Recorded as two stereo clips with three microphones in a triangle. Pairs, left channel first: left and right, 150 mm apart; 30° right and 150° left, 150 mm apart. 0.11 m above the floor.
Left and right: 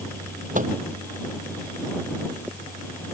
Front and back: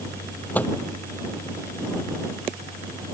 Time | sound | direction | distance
0.6 | a microwave | 110° right | ?